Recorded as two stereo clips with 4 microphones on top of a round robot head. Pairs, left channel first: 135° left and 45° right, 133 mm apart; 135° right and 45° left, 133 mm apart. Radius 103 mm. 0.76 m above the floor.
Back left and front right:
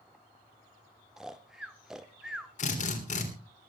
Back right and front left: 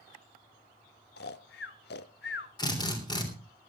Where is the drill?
165° left, 3.5 m.